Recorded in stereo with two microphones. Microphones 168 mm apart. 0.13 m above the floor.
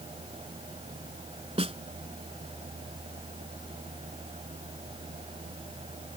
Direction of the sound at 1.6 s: 35° right (ahead or behind).